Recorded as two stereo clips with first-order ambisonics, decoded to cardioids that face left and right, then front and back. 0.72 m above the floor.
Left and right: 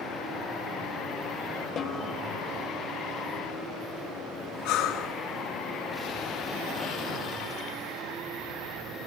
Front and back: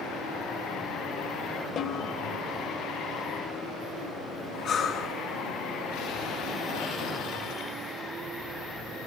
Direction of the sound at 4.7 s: 55° left.